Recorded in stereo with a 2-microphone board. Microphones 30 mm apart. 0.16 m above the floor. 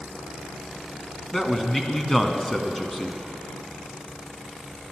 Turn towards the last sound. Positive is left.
turn(degrees=15)  # may be behind; listen again after turning